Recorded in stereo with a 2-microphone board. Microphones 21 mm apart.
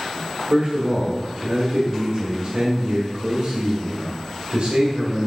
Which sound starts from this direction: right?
A man speaking, at 0.5 s.